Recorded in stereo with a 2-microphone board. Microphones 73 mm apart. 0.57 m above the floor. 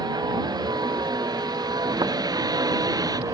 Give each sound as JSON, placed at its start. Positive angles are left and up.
{"t": 0.0, "sound": "a vehicle", "side_deg": -70}